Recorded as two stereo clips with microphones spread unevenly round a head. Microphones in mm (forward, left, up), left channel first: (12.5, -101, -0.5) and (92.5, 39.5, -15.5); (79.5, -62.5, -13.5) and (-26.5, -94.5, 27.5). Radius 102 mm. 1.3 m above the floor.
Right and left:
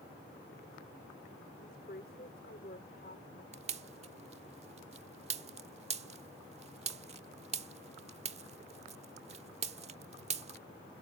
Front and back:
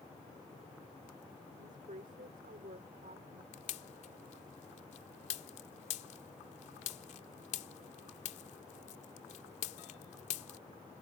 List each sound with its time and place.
1.6 s a woman speaking: 170° right
3.5 s a pop: 30° left